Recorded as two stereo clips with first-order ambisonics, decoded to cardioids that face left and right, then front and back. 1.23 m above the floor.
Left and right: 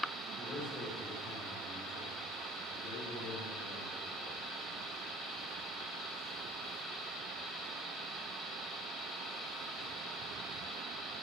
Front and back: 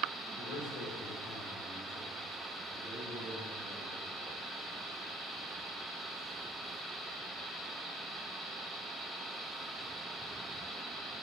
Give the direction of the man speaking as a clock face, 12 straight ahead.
11 o'clock.